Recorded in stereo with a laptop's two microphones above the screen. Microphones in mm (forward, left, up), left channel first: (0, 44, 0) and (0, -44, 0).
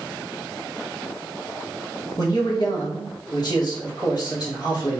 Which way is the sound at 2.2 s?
50° left (ahead or behind).